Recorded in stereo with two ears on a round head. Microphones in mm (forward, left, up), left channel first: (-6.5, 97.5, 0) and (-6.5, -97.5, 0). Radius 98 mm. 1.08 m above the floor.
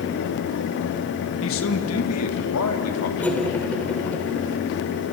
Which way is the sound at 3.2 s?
5° left (ahead or behind).